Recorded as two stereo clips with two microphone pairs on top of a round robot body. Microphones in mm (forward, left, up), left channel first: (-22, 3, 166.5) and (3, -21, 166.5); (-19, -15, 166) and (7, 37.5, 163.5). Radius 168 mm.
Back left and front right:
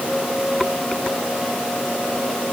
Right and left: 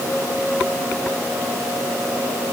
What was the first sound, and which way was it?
Only background noise.